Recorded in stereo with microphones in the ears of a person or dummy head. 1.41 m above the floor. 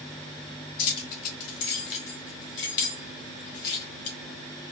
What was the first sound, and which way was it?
Keys jangling, 75° left (ahead or behind).